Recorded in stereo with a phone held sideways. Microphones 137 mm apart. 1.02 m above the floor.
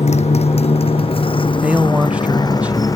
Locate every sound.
0.0 s a motorcycle: 55° left (ahead or behind); by 3.0 s 25° left (ahead or behind)
1.6 s a man speaking: 10° right (ahead or behind)